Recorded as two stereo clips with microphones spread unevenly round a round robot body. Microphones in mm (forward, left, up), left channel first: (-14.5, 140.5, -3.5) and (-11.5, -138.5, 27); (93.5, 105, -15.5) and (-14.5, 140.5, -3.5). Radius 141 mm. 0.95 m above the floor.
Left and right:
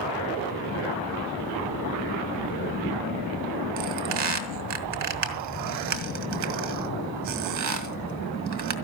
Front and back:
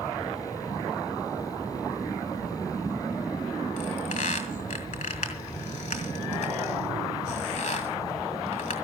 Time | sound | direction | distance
3.8 | a squeak | 65° right | 1.9 m